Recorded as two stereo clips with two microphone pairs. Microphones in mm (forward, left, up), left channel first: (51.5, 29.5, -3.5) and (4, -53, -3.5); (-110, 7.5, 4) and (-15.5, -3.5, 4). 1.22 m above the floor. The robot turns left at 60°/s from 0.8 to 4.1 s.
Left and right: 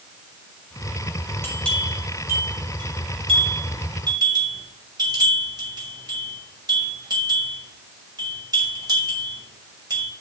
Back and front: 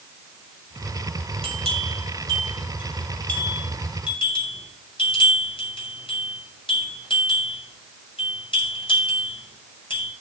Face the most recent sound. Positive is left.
turn(degrees=-160)